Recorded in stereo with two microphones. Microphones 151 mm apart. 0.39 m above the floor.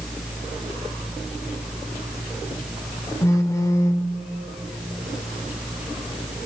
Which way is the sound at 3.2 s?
20° left (ahead or behind).